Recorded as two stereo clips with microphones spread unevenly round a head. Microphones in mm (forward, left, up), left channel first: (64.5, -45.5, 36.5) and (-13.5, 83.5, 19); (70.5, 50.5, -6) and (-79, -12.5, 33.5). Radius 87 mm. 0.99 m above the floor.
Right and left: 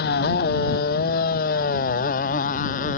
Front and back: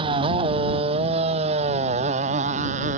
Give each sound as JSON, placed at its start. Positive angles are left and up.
{"t": 0.0, "sound": "a motorcycle", "azimuth_deg": -95}